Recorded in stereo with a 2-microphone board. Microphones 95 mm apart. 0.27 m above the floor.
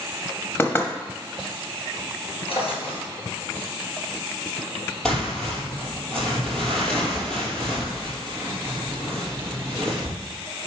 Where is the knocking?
20° left (ahead or behind), 1.1 m.